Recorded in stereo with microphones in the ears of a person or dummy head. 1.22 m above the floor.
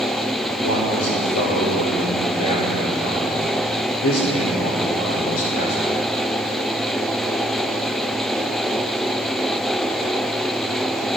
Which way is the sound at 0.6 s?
75° left (ahead or behind).